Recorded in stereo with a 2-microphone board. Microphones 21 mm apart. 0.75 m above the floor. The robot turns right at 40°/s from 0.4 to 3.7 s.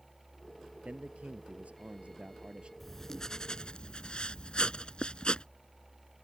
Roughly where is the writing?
Ahead.